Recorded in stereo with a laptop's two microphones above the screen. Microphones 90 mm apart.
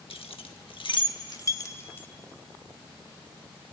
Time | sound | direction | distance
0.1 | keys jangling | 85° left | 1.2 m